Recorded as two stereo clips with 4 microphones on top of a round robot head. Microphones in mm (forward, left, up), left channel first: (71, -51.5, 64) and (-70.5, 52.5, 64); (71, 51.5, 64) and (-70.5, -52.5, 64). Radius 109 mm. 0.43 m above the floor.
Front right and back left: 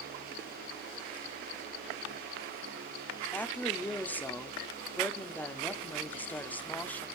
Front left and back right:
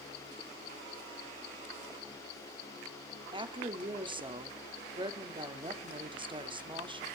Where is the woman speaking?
110° right, 1.1 m.